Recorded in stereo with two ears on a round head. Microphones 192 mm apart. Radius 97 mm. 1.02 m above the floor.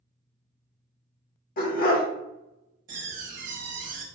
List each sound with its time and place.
1.6 s a dog barking: 45° left (ahead or behind), 0.9 m
2.9 s a door slam: 40° right (ahead or behind), 0.9 m